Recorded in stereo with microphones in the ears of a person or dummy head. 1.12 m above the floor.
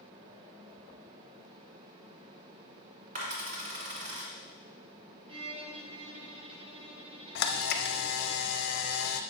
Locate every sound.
3.1 s a dropped coin: 45° right (ahead or behind), 1.8 m
5.3 s a violin: 30° right (ahead or behind), 1.0 m
7.3 s a camera shutter: 60° left (ahead or behind), 0.6 m